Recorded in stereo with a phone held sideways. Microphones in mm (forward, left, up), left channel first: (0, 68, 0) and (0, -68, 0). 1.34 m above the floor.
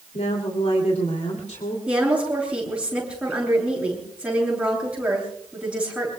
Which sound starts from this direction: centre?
A woman speaking, at 1.9 s.